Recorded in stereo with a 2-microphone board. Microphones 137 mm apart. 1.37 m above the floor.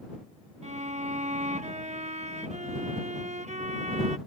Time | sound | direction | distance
0.6 | a violin | 55° right (ahead or behind) | ?